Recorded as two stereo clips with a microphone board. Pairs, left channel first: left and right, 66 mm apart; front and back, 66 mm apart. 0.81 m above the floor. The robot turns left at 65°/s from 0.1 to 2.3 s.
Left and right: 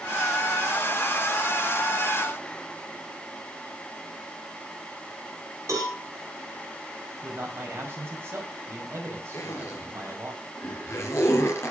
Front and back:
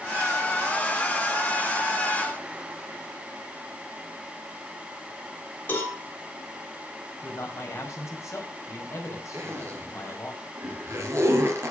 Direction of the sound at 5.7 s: 50° right.